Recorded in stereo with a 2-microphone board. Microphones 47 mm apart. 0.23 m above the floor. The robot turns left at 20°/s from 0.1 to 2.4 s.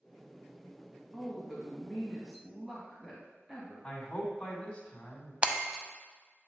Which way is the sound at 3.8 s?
20° left (ahead or behind).